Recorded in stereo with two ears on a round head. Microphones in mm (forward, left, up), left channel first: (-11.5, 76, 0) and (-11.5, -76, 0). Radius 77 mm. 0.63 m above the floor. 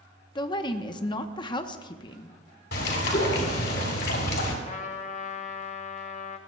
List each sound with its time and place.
0.3 s a woman speaking: 25° left (ahead or behind), 0.7 m
2.7 s a bird: 70° left (ahead or behind), 3.5 m
4.7 s a trumpet: 40° left (ahead or behind), 0.9 m